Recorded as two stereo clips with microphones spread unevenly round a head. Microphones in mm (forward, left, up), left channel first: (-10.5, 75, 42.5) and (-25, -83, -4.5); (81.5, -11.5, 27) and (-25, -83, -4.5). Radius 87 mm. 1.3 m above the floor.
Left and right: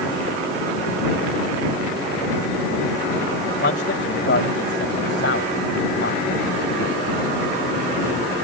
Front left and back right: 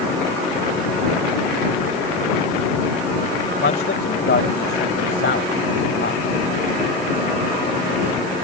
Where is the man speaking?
55° left; by 6.2 s 60° left.